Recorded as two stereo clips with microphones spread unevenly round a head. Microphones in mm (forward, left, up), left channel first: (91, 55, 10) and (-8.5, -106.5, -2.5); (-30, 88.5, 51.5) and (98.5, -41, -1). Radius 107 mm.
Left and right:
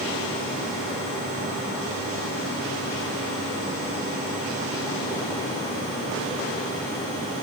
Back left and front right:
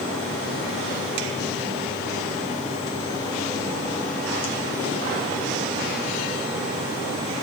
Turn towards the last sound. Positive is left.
No sound to turn to.